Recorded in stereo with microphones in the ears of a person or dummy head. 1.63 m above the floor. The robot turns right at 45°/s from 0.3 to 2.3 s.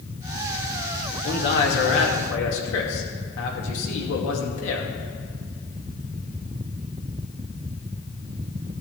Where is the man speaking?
50° left, 2.5 m; by 4.9 s 95° left, 2.5 m.